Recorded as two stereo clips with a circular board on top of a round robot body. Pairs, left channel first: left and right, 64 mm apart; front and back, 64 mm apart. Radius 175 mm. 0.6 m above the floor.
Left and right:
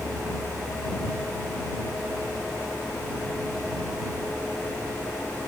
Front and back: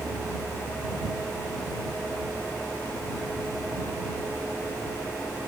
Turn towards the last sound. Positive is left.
No sound to turn to.